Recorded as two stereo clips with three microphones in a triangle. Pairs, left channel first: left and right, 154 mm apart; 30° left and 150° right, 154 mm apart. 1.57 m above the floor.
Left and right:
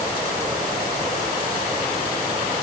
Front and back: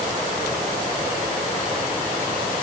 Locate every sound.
Only background noise.